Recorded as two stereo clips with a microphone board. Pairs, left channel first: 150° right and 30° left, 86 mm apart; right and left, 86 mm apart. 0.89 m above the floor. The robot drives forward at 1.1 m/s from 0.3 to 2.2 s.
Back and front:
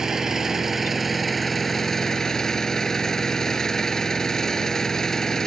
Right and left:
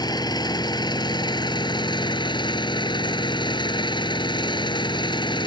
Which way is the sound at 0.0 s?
55° right.